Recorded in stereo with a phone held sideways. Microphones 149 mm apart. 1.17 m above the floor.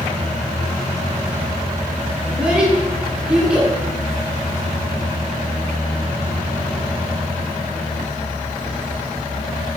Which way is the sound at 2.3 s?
5° right (ahead or behind).